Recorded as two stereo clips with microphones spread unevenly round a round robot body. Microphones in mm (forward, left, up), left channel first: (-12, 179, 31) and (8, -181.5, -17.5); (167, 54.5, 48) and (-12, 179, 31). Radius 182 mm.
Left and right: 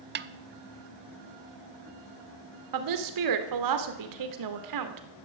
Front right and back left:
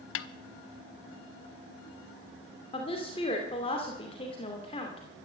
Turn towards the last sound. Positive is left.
turn(degrees=-105)